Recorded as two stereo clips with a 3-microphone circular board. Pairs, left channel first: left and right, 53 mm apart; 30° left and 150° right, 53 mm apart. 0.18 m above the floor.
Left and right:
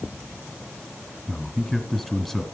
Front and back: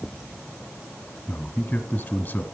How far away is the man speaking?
About 1.2 m.